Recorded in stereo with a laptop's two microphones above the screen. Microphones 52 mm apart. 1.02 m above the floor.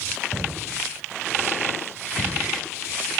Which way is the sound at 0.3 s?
60° left (ahead or behind).